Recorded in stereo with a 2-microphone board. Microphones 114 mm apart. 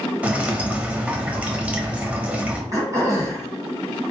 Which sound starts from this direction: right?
Throat clearing, at 2.7 s.